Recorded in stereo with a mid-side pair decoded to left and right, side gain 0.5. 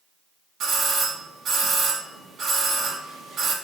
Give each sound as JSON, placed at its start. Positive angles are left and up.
{"t": 0.6, "sound": "a doorbell", "azimuth_deg": -60, "distance_m": 1.5}